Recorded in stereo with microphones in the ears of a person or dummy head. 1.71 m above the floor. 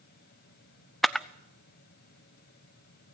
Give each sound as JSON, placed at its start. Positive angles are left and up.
{"t": 0.0, "sound": "a fan", "side_deg": 55, "distance_m": 1.8}
{"t": 1.0, "sound": "a camera shutter", "side_deg": 0, "distance_m": 0.5}